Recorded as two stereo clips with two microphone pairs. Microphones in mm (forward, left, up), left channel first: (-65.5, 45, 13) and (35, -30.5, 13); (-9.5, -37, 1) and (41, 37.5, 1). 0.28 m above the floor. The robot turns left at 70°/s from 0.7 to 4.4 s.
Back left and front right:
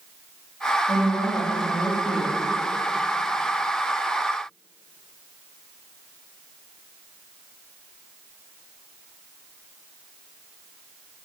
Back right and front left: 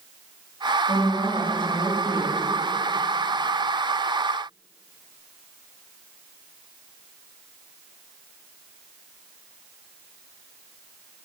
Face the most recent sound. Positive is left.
turn(degrees=75)